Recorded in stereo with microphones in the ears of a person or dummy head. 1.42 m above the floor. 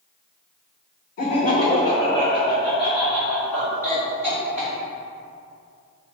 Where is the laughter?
55° left (ahead or behind), 0.7 m; by 4.7 s 10° left (ahead or behind), 2.5 m.